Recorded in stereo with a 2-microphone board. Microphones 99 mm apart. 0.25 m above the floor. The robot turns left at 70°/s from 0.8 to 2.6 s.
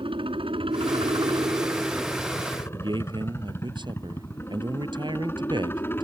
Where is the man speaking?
50° right (ahead or behind).